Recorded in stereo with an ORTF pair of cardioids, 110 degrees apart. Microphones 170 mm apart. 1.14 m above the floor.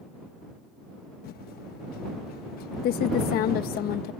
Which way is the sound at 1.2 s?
65° left.